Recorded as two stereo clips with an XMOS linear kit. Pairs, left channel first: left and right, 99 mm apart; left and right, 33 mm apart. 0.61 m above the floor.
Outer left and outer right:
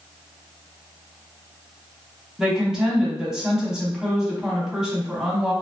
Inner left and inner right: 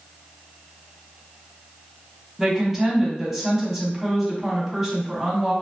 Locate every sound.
2.4 s a woman speaking: 5° right (ahead or behind), 1.1 m